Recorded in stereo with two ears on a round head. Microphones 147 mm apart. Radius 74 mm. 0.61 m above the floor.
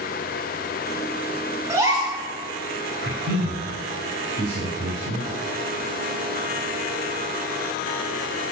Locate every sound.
1.7 s a gasp: 20° right (ahead or behind), 5 m
3.0 s a man speaking: 65° right (ahead or behind), 3.5 m